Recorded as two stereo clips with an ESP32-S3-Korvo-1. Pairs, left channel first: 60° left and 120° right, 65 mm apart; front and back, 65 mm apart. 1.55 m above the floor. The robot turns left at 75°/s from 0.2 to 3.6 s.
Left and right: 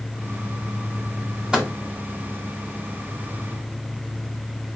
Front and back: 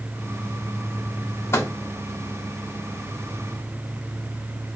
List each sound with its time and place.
1.5 s a microwave: 40° right, 1.6 m; by 1.7 s 55° right, 1.6 m